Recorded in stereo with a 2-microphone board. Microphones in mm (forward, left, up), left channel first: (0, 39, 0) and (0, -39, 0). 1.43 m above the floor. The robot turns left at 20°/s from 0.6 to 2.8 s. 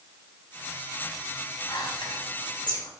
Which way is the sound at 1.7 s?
80° left.